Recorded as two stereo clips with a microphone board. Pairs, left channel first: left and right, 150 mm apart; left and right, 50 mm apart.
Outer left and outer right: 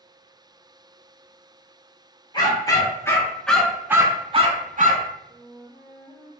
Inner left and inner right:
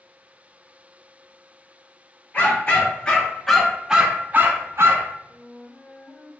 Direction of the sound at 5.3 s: 30° right (ahead or behind).